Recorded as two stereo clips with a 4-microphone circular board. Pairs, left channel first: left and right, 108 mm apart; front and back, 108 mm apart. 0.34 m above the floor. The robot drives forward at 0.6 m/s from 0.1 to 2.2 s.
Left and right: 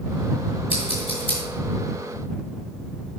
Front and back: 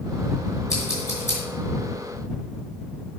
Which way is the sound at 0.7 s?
55° left.